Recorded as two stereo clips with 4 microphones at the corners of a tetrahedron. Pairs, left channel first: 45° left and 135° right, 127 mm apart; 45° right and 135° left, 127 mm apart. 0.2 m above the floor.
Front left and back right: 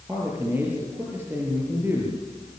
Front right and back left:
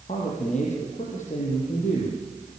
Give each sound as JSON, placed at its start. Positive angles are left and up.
{"t": 0.1, "sound": "a man speaking", "azimuth_deg": -65, "distance_m": 6.0}